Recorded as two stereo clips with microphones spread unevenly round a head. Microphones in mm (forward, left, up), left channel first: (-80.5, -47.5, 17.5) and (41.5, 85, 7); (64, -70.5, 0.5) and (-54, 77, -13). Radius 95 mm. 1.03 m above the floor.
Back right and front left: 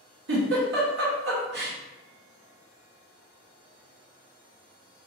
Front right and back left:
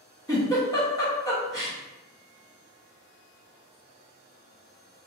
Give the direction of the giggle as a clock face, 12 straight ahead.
11 o'clock.